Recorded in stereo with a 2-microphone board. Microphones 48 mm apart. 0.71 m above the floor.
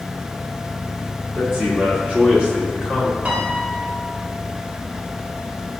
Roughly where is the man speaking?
Right.